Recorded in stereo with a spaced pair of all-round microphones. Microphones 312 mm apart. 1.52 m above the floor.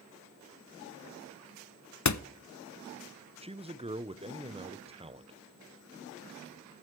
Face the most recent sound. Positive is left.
turn(degrees=-15)  # may be behind; listen again after turning